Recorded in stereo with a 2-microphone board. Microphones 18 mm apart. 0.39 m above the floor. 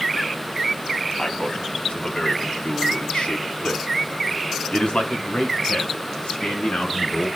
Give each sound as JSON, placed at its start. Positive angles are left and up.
{"t": 1.2, "sound": "a man speaking", "side_deg": 55, "distance_m": 3.0}